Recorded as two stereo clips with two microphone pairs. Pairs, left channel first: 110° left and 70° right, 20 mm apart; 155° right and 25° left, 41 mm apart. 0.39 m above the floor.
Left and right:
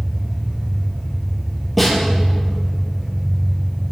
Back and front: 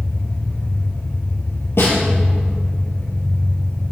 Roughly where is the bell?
No bell in this recording.